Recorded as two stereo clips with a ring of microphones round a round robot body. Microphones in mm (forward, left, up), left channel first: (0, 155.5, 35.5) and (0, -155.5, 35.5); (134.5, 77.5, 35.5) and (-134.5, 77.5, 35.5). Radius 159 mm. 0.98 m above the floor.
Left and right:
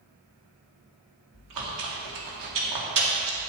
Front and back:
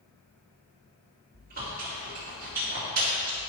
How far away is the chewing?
About 2.0 m.